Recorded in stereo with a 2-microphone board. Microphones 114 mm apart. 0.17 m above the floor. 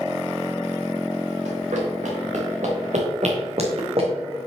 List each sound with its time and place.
1.4 s running footsteps: 80° right, 3 m; by 4.1 s 55° right (ahead or behind), 2.5 m